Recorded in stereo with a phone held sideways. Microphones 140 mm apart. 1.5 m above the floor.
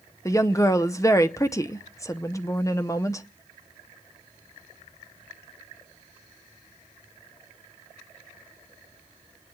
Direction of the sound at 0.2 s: 20° left (ahead or behind).